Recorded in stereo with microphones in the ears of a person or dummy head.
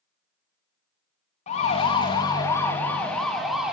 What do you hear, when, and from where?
1.5 s a siren: 35° left (ahead or behind), 4 m; by 3.7 s centre (ahead or behind), 4.5 m